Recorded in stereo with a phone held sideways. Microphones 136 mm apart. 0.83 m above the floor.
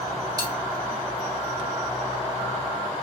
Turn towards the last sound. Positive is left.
turn(degrees=-25)  # may be behind; listen again after turning